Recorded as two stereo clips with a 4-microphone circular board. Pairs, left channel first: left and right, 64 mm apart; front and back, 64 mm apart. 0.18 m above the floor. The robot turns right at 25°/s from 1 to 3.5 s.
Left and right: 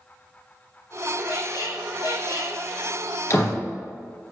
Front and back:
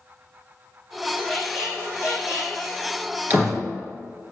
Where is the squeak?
90° left, 2.5 m; by 2.6 s 125° left, 2.5 m.